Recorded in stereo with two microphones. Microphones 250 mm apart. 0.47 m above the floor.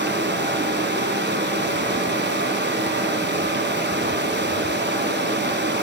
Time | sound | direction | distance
0.0 | running water | 45° right (ahead or behind) | 1.3 m